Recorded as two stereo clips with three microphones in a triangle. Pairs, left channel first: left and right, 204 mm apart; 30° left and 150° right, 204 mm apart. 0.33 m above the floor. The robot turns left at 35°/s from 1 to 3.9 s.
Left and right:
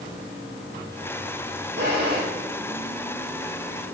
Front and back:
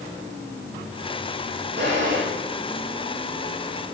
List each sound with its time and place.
1.8 s a drawer: 115° right, 6.5 m; by 2.2 s 130° right, 6.5 m